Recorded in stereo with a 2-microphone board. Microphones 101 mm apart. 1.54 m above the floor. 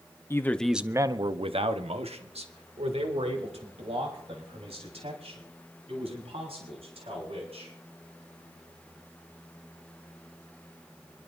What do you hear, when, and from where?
0.3 s a man speaking: 25° left (ahead or behind), 0.8 m; by 7.7 s 75° right (ahead or behind), 7 m